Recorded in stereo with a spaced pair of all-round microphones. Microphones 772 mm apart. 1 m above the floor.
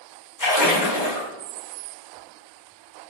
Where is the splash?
25° left (ahead or behind), 0.8 m.